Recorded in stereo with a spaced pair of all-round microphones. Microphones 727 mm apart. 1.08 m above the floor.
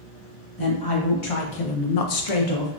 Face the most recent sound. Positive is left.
turn(degrees=35)  # may be behind; listen again after turning